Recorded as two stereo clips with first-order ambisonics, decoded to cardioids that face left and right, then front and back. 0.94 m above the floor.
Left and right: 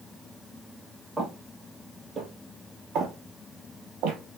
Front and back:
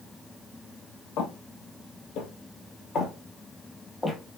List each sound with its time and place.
1.2 s footsteps: straight ahead, 1.6 m; by 4.2 s 85° right, 1.4 m